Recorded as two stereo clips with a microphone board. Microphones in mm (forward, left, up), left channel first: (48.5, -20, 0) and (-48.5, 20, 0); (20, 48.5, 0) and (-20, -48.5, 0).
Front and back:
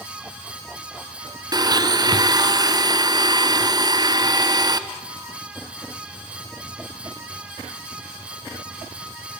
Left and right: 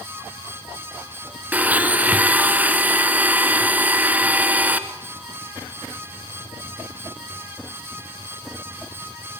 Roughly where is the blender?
Behind.